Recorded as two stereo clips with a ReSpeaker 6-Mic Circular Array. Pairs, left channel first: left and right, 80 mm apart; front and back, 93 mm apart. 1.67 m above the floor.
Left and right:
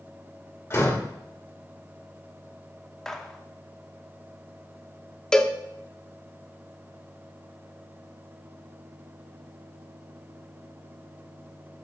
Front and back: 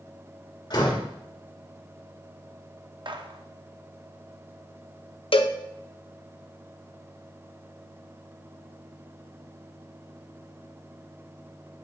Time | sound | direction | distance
0.7 | a door slam | 35° left | 2 m
3.0 | a gunshot | 170° left | 0.8 m
5.3 | a cowbell | 10° left | 0.7 m